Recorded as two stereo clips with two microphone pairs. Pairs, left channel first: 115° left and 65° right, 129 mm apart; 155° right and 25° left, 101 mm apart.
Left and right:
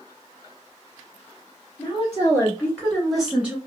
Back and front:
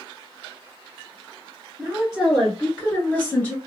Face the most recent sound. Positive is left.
turn(degrees=-120)